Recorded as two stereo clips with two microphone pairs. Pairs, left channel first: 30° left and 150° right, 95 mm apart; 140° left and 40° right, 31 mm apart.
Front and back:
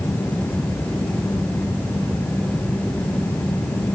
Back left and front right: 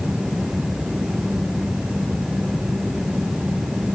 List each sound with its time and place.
Only background noise.